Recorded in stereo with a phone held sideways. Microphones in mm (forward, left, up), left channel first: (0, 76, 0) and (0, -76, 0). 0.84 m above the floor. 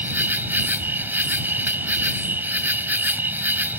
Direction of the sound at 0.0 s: 15° right (ahead or behind).